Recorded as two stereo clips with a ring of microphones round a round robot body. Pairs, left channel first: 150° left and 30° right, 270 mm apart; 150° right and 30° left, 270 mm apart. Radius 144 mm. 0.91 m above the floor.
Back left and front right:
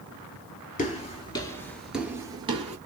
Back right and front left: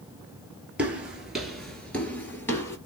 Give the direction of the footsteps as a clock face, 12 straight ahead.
8 o'clock.